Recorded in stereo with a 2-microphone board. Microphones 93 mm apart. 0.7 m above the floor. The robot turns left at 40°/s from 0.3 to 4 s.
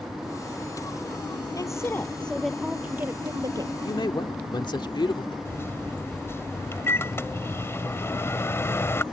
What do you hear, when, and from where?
1.6 s a woman speaking: 40° left; by 3.7 s 50° right
3.8 s a man speaking: 60° left (ahead or behind); by 5.3 s 55° left (ahead or behind)
5.5 s a microwave: 25° left (ahead or behind)